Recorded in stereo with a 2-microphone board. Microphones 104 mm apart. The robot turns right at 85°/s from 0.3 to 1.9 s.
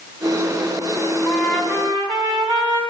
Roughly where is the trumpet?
Behind.